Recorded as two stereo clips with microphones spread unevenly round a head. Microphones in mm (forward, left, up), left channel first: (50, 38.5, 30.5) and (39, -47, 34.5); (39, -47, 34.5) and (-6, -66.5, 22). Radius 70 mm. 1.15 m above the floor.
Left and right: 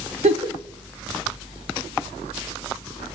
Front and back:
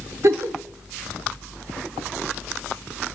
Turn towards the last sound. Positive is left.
turn(degrees=-125)